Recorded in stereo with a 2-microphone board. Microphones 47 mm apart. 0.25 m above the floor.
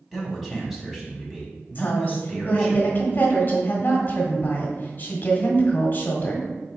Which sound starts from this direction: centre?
A man speaking, at 0.1 s.